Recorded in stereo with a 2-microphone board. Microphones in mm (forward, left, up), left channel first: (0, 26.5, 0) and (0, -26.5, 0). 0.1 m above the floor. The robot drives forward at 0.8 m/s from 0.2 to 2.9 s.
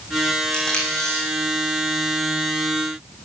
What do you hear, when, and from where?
0.5 s tape being pulled: 10° left (ahead or behind), 7 m